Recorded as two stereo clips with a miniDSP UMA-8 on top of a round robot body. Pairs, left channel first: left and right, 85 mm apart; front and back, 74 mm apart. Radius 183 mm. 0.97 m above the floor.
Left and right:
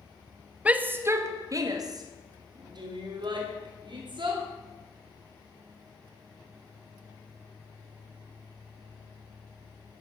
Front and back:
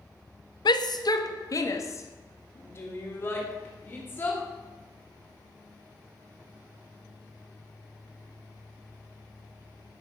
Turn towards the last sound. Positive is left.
turn(degrees=-65)